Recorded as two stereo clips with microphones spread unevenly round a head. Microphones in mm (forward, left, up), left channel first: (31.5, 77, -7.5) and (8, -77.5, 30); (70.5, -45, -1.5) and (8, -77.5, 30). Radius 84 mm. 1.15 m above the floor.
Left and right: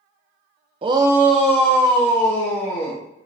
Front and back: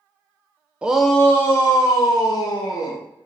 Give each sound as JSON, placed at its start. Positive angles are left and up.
{"t": 0.8, "sound": "a shout", "azimuth_deg": -50, "distance_m": 0.8}